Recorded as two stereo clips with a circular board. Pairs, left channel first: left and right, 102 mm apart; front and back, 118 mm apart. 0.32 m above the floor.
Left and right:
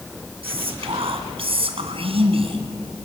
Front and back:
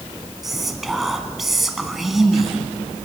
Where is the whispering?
90° right, 2.5 m.